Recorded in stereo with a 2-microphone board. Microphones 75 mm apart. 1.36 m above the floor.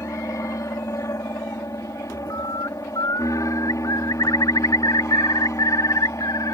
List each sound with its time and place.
0.0 s an aircraft: 45° left (ahead or behind)
2.3 s a bird: 60° left (ahead or behind)